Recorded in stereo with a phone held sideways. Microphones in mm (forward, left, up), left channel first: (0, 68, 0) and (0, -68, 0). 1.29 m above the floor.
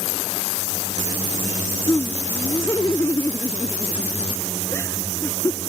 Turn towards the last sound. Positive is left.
turn(degrees=20)  # may be behind; listen again after turning